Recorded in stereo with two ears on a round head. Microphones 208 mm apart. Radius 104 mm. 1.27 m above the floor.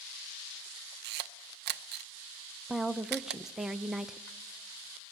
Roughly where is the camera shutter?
Right.